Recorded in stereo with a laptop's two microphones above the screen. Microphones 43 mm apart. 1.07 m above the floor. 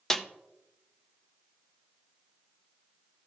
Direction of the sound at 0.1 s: 15° left (ahead or behind).